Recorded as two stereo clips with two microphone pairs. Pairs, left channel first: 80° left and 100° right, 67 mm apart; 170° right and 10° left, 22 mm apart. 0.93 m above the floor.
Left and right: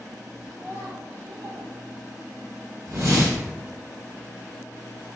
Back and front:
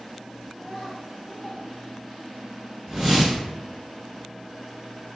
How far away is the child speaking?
About 1.6 m.